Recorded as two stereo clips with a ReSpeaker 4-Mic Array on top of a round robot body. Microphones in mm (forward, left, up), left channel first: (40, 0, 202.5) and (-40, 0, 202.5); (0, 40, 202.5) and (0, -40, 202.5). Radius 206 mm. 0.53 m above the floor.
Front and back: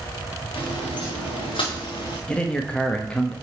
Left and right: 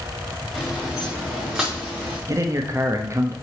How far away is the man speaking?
About 1.2 m.